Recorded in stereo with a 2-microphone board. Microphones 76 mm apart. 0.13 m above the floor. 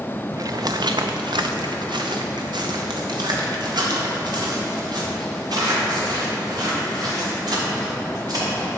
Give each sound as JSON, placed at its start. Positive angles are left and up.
{"t": 0.3, "sound": "footsteps", "side_deg": -45, "distance_m": 0.6}